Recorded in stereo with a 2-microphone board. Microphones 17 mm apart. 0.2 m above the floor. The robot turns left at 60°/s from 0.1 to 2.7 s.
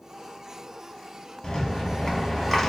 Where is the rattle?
95° left, 1.0 m; by 2.7 s 20° left, 1.0 m.